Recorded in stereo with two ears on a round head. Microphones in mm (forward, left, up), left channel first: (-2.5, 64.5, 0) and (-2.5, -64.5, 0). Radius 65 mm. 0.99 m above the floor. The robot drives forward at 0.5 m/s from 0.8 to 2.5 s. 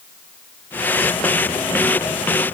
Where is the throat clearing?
I don't hear throat clearing.